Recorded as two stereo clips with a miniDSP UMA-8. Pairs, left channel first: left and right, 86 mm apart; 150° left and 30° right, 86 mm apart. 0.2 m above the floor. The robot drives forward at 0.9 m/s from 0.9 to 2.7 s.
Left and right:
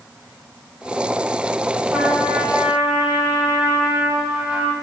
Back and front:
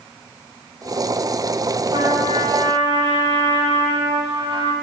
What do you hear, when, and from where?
1.9 s a trumpet: 15° right, 6 m; by 4.7 s 20° right, 5.5 m